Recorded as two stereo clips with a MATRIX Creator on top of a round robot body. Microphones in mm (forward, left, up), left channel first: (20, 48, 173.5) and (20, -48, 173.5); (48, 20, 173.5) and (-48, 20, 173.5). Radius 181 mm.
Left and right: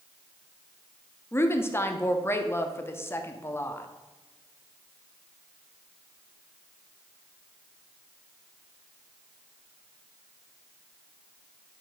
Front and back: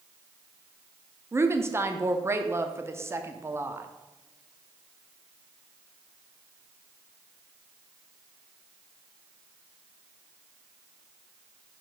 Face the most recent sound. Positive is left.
turn(degrees=135)